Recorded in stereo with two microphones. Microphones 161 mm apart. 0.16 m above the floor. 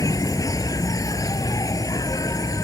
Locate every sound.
0.0 s an insect: 20° left (ahead or behind)